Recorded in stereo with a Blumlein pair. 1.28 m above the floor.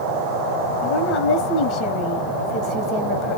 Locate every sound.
0.8 s a woman speaking: 30° left, 0.8 m